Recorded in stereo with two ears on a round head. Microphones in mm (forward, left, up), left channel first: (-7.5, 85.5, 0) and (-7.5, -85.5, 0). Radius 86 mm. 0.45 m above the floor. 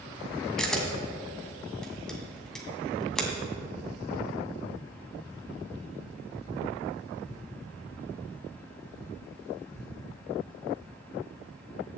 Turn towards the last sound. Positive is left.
turn(degrees=5)  # may be behind; listen again after turning